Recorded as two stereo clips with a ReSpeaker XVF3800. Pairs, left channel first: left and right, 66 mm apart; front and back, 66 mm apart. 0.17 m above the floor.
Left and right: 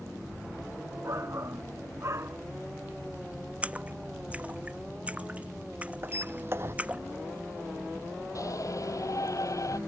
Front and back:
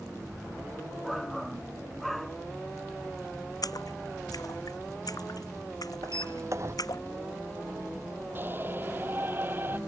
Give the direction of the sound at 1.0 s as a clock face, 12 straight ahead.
3 o'clock.